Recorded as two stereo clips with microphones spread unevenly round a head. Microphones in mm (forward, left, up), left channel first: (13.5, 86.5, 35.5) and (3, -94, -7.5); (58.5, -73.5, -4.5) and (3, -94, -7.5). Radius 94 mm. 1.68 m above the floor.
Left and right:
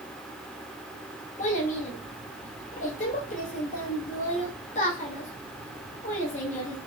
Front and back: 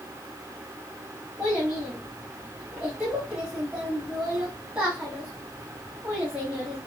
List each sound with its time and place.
1.4 s a child speaking: 120° left, 1.6 m